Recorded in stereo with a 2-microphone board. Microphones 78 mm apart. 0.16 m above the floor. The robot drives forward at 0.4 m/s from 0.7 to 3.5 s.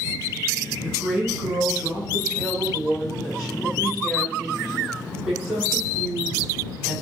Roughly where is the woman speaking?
Centre.